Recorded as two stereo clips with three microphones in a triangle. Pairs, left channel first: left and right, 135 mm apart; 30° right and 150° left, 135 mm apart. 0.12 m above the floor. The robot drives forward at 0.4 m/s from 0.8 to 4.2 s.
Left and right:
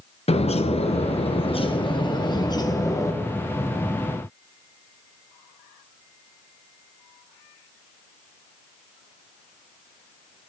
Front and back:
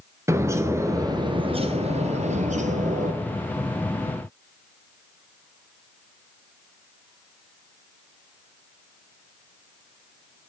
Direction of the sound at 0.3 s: 90° left.